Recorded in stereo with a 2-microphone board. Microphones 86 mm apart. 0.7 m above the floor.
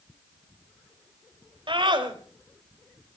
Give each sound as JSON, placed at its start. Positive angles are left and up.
{"t": 1.7, "sound": "a scream", "side_deg": -75, "distance_m": 4.0}